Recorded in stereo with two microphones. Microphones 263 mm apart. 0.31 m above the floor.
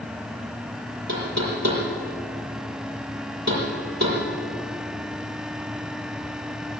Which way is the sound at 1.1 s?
80° right.